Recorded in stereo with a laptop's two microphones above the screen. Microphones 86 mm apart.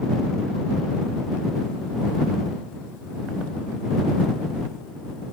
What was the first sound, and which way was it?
Only background noise.